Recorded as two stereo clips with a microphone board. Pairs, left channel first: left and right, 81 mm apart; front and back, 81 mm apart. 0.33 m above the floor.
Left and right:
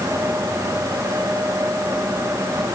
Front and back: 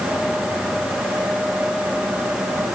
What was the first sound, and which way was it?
Only background noise.